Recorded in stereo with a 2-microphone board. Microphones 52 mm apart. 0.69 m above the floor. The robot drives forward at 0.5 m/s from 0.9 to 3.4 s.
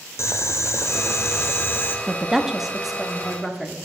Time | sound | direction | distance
0.2 | boiling | 60° left (ahead or behind) | 0.6 m
2.1 | a woman speaking | 10° right (ahead or behind) | 0.6 m